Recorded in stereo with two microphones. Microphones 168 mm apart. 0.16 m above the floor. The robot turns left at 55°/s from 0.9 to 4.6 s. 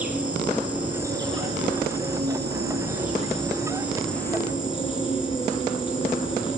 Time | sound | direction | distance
0.0 | an insect | 10° right | 5 m